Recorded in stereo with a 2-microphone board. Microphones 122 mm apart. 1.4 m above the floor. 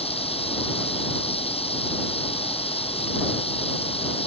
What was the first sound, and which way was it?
Running water, 55° left (ahead or behind).